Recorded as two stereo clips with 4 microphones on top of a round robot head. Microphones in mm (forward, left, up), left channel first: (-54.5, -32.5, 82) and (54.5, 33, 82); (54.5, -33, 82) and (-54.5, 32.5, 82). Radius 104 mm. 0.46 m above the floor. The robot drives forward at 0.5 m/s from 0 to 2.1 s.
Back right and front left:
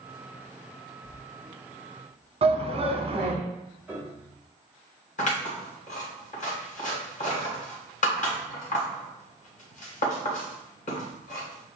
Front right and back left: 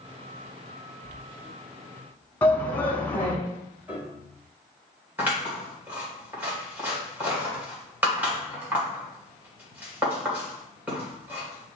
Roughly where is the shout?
Ahead left.